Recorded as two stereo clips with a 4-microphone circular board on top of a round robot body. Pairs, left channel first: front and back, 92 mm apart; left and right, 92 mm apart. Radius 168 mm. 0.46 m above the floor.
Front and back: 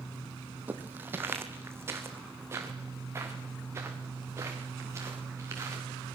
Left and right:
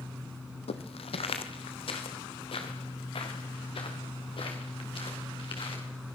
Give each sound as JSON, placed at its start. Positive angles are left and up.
{"t": 0.7, "sound": "footsteps", "azimuth_deg": 105, "distance_m": 1.4}